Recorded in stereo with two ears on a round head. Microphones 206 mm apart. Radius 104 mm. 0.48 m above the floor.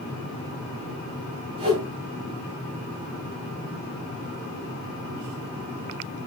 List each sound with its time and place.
1.6 s a whoosh: 20° right (ahead or behind), 5 m